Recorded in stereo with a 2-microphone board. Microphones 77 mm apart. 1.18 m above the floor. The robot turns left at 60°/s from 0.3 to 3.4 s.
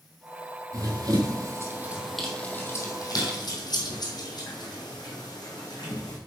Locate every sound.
0.7 s running footsteps: 45° right (ahead or behind), 1.9 m; by 6.2 s 60° left (ahead or behind), 3.5 m